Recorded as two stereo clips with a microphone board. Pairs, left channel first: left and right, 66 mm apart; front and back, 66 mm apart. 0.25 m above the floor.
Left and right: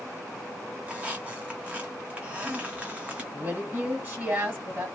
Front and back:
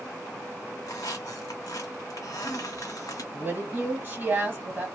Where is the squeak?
20° right, 0.8 m.